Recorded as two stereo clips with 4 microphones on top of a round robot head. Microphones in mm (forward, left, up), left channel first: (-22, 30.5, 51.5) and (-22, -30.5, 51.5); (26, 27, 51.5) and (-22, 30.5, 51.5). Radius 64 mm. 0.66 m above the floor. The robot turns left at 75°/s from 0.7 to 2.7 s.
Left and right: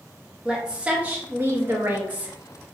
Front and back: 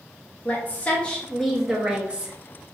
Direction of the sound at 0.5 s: 25° right.